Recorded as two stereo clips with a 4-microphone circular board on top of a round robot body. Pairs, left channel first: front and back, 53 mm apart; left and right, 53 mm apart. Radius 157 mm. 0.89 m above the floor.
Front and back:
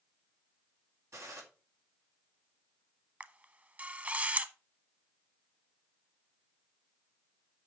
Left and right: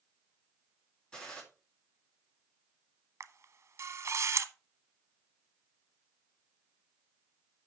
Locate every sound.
1.1 s a gunshot: 165° left, 4 m
3.2 s a camera shutter: 125° right, 1.1 m